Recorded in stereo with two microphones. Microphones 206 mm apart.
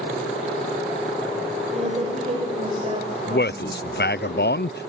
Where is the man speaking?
55° left (ahead or behind), 0.6 m.